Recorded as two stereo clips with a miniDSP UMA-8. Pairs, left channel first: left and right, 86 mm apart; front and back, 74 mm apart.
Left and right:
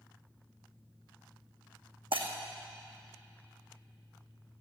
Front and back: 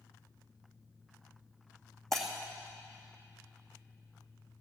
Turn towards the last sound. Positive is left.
turn(degrees=-85)